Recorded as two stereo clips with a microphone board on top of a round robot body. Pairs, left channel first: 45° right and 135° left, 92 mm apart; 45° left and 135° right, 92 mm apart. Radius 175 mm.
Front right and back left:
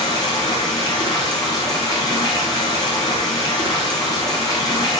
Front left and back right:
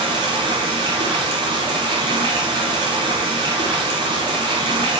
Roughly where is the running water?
Right.